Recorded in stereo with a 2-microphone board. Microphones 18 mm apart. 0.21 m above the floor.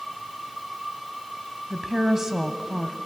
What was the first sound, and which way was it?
A woman speaking, 30° right (ahead or behind).